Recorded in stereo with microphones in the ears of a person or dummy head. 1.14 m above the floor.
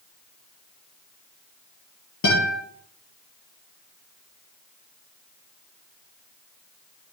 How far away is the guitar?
About 9.5 m.